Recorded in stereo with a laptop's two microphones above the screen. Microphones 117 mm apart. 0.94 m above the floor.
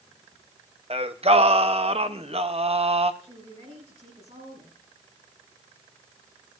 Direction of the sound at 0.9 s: 60° right (ahead or behind).